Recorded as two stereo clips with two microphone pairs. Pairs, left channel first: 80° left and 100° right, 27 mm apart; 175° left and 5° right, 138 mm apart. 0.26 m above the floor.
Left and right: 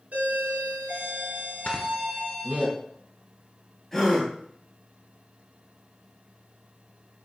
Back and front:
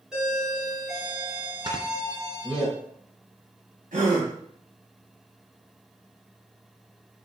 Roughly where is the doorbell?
Right.